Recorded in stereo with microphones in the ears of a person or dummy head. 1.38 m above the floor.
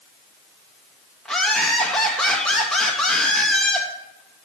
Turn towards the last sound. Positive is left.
turn(degrees=5)  # may be behind; listen again after turning